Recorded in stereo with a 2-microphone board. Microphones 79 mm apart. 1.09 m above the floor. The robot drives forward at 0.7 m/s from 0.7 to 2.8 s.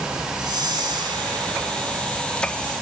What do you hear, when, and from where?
0.4 s a whoosh: 60° right (ahead or behind), 2.5 m; by 1.9 s 70° right (ahead or behind), 2 m